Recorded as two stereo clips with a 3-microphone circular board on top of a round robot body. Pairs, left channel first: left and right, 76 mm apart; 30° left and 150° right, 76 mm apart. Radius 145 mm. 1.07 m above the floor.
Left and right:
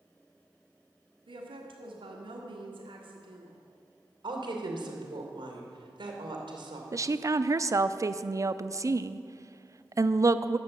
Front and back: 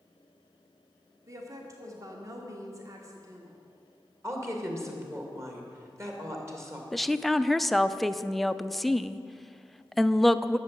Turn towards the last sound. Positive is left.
turn(degrees=-60)